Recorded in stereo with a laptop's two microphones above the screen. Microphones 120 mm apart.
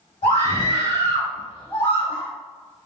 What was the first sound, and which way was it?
A scream, 80° left.